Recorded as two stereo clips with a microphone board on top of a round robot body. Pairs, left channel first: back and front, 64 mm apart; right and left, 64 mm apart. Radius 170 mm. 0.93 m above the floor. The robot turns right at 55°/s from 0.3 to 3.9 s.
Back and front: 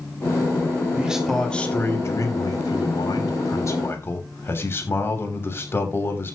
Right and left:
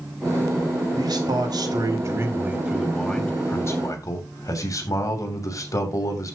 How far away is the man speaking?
About 3 m.